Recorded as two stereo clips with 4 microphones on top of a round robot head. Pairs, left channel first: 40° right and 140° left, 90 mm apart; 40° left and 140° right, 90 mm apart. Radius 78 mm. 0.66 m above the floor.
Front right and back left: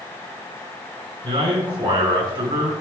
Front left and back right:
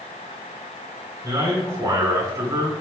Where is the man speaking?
170° left, 4 m.